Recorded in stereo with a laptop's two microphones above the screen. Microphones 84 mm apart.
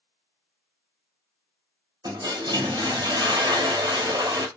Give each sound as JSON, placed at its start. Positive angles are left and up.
{"t": 2.0, "sound": "a toilet flushing", "side_deg": -55, "distance_m": 0.9}